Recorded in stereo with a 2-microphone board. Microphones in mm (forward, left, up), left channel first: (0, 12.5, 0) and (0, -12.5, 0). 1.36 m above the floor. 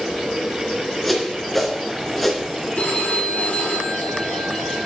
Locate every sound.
1.0 s a whoosh: 5° left (ahead or behind), 3 m
2.8 s a phone ringing: 85° left, 3.5 m